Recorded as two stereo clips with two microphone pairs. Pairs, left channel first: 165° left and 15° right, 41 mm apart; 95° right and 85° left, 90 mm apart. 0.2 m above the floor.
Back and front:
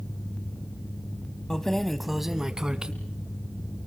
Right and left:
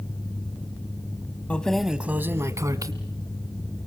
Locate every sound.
1.5 s keys jangling: 145° right, 0.9 m; by 2.9 s 50° left, 1.4 m